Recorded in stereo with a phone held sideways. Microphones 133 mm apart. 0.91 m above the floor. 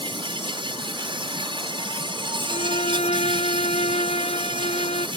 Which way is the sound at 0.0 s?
40° right (ahead or behind).